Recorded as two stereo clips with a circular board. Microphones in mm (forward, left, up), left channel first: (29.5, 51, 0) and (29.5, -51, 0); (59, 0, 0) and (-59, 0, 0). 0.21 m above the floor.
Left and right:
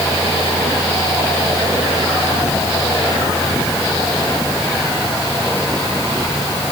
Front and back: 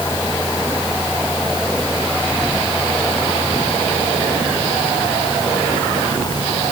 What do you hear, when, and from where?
Only background noise.